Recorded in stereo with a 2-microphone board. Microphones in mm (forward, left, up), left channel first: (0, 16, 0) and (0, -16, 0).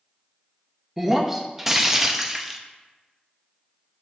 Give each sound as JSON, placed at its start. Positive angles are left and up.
{"t": 1.0, "sound": "breaking glass", "side_deg": -10, "distance_m": 0.6}